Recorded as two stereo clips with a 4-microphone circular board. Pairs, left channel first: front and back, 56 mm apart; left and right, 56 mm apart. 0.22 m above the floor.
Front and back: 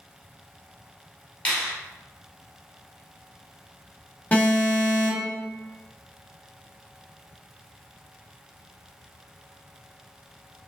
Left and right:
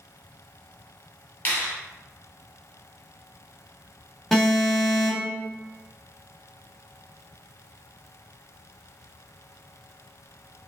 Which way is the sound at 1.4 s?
60° left.